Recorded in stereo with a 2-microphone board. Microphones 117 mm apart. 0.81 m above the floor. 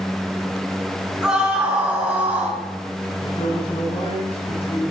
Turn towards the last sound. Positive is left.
turn(degrees=55)  # may be behind; listen again after turning